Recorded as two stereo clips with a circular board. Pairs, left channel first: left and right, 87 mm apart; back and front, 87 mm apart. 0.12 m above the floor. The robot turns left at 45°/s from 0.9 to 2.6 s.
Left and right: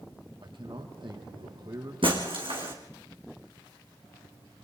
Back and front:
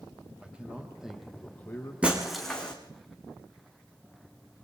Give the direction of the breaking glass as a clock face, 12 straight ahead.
2 o'clock.